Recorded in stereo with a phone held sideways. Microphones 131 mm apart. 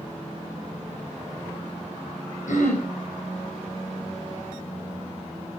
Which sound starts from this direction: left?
Throat clearing, at 2.5 s.